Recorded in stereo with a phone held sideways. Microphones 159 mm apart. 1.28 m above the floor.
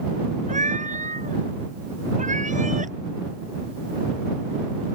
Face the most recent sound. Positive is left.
turn(degrees=-50)  # may be behind; listen again after turning